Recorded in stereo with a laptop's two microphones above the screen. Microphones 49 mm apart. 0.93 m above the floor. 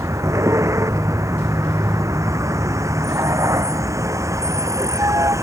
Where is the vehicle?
75° right (ahead or behind); by 5.4 s 85° right.